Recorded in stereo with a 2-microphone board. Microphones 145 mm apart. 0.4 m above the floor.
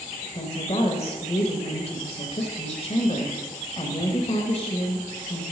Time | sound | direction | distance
0.3 | a woman speaking | 45° left (ahead or behind) | 1.3 m